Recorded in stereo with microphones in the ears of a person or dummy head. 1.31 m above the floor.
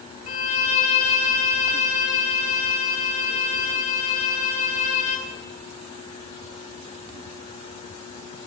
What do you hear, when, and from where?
0.3 s a violin: 45° left (ahead or behind), 1.6 m